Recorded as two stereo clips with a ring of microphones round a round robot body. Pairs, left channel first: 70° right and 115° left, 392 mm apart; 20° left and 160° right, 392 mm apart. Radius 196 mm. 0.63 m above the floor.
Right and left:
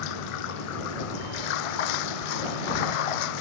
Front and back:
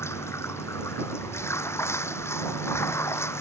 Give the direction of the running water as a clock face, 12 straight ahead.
2 o'clock.